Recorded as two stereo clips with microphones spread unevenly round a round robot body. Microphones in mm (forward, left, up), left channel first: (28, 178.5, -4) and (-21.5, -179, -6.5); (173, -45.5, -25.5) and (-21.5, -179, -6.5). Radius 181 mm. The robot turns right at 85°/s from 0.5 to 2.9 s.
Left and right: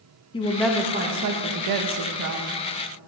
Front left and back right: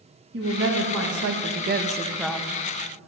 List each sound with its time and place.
0.3 s a woman speaking: 155° left, 0.8 m; by 2.5 s 35° right, 0.8 m